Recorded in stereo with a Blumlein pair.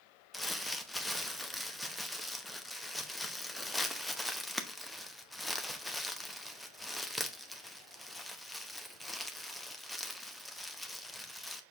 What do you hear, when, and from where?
0.3 s crumpling: 5° left, 0.8 m